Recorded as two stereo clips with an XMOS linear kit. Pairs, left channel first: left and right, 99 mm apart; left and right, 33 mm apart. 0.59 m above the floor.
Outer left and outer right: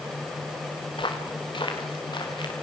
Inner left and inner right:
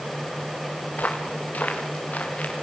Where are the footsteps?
55° left (ahead or behind), 5 m; by 2.5 s 50° left (ahead or behind), 5.5 m.